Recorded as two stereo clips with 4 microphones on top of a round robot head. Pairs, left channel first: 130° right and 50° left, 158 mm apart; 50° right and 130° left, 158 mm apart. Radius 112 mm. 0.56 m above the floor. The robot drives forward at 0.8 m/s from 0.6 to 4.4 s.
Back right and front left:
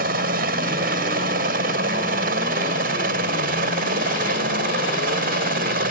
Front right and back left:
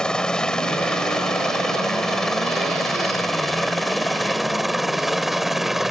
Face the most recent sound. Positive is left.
turn(degrees=40)